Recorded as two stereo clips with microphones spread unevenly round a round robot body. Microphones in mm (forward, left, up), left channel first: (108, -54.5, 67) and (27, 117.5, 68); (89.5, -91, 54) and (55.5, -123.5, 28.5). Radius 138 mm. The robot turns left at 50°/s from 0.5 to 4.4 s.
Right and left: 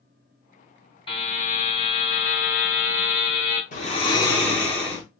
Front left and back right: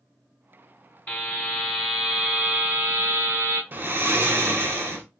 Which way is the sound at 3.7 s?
115° right.